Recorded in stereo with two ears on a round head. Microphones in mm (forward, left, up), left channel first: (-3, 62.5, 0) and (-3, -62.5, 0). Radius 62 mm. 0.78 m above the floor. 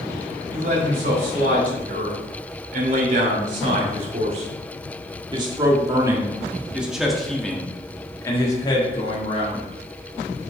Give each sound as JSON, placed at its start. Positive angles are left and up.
{"t": 0.5, "sound": "a man speaking", "side_deg": -65, "distance_m": 3.5}